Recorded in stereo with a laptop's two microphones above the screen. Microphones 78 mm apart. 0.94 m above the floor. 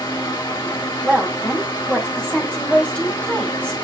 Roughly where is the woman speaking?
Centre.